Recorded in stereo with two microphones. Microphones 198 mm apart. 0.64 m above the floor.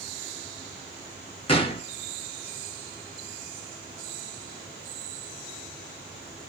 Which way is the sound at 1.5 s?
30° left (ahead or behind).